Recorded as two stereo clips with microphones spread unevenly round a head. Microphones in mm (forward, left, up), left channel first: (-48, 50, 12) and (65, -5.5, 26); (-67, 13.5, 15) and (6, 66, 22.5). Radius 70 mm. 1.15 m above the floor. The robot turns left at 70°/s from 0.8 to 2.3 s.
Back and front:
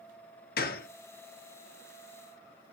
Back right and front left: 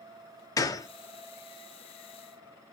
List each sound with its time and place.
0.6 s a gunshot: 165° left, 0.6 m; by 0.9 s 160° left, 0.6 m